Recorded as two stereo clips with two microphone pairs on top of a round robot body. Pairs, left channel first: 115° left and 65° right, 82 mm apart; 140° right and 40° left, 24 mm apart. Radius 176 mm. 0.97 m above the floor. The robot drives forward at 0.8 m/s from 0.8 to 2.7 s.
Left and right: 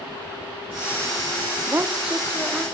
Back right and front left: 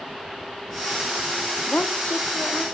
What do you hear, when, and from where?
1.7 s a woman speaking: 130° right, 0.6 m; by 2.6 s 160° right, 1.2 m